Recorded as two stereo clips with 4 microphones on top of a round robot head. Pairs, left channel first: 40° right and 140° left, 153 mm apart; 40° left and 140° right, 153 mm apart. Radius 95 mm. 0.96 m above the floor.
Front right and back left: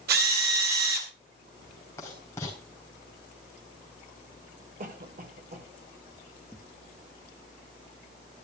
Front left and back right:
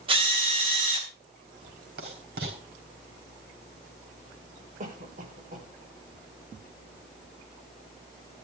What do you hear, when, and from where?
0.1 s a drill: 165° left, 3.5 m
2.0 s writing: 115° right, 4 m
4.8 s a cough: straight behind, 4.5 m